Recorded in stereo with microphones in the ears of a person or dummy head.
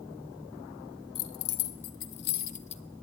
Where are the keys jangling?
85° left, 1.2 m; by 2.8 s 30° left (ahead or behind), 0.9 m.